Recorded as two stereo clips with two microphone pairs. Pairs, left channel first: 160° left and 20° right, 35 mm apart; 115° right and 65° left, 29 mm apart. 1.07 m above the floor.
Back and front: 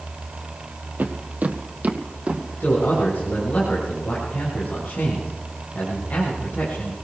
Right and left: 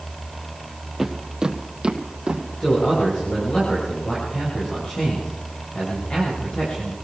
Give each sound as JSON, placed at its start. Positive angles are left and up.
{"t": 1.0, "sound": "footsteps", "azimuth_deg": -15, "distance_m": 2.0}
{"t": 2.6, "sound": "a man speaking", "azimuth_deg": -155, "distance_m": 6.5}